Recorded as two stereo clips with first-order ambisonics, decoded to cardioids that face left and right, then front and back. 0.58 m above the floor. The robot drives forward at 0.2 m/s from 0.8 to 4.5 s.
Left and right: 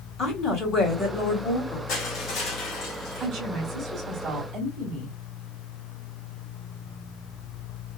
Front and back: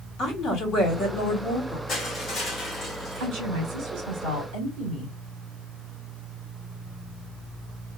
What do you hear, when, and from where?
0.2 s a woman speaking: 40° left, 1.8 m; by 1.8 s 45° left, 1.7 m
1.9 s crushing: 65° left, 1.8 m; by 3.3 s 75° left, 1.8 m
3.2 s a woman speaking: 160° right, 1.3 m